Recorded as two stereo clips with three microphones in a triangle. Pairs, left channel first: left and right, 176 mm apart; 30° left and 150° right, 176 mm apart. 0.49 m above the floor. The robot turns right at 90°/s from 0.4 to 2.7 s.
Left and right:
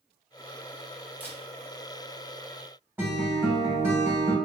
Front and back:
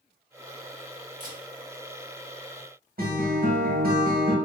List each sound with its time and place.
1.2 s a camera shutter: 170° right, 0.8 m; by 1.4 s 155° right, 0.8 m
3.0 s a guitar: 170° right, 0.7 m